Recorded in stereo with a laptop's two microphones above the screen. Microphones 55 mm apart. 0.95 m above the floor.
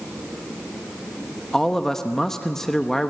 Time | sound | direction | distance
1.5 | a man speaking | 10° left (ahead or behind) | 1.0 m